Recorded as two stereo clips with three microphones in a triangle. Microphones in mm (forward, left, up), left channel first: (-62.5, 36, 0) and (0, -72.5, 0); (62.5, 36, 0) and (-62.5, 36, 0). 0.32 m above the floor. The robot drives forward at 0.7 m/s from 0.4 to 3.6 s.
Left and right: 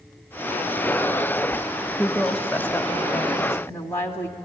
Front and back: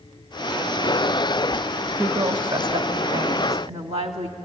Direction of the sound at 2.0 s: 155° right.